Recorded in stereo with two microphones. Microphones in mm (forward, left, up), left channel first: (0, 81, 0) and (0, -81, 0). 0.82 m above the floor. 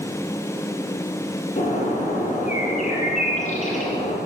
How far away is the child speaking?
No child speaking in this recording.